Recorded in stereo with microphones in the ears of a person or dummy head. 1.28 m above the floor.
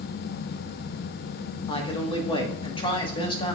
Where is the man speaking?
25° left (ahead or behind), 1.1 m.